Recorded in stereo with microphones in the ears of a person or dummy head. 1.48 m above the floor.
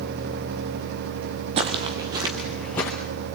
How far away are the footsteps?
About 1.8 m.